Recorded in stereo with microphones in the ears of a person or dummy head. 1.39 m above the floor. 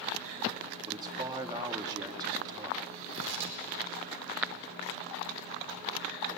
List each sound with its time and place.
0.9 s a man speaking: 25° right (ahead or behind), 2.0 m
3.1 s tearing paper: 70° right (ahead or behind), 3.5 m